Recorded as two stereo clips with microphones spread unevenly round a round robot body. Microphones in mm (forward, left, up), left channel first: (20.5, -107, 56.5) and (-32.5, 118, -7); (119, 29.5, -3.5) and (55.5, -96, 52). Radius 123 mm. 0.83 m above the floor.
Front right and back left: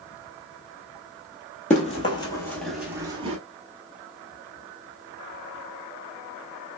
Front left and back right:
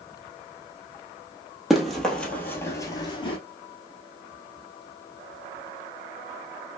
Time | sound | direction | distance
1.7 | running footsteps | 50° right | 1.1 m